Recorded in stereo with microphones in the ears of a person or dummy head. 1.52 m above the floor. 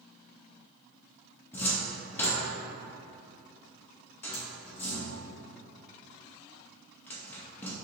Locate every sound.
1.5 s a cupboard door: 10° left (ahead or behind), 0.7 m